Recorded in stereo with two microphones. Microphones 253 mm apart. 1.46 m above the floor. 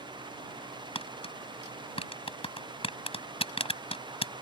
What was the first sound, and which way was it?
Tapping, 20° left (ahead or behind).